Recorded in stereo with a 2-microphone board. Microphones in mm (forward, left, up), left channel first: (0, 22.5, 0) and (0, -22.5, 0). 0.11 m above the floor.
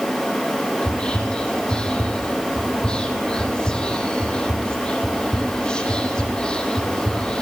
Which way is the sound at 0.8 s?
20° left (ahead or behind).